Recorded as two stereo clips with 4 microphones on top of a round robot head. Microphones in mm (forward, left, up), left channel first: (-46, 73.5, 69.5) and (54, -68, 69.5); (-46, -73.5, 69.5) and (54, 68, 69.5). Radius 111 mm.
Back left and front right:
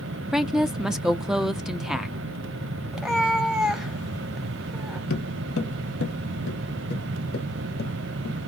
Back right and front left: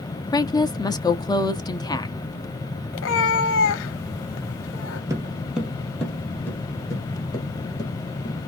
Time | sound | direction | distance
0.3 | a woman speaking | 135° right | 0.7 m
2.9 | a cat meowing | 140° right | 0.6 m
5.1 | footsteps | 130° left | 0.9 m